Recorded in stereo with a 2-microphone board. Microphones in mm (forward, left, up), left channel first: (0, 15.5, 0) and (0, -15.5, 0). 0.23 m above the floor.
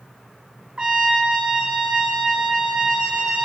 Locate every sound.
0.8 s a trumpet: 25° right (ahead or behind), 2.5 m